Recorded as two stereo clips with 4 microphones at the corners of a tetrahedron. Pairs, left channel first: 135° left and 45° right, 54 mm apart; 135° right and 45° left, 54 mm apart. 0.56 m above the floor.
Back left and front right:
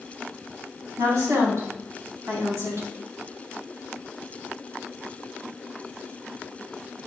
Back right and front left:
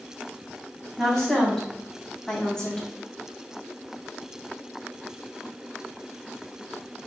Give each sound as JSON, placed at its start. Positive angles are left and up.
{"t": 1.0, "sound": "a woman speaking", "azimuth_deg": -55, "distance_m": 4.0}